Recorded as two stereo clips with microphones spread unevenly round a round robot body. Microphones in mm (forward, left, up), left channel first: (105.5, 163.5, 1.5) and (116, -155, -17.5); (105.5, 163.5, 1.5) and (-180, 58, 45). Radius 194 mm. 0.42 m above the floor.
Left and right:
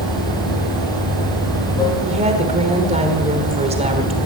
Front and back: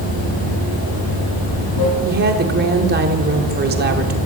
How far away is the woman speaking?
About 1.4 m.